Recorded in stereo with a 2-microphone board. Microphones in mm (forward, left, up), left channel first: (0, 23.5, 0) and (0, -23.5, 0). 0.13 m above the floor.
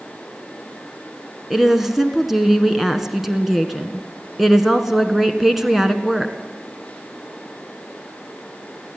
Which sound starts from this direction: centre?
A woman speaking, at 1.5 s.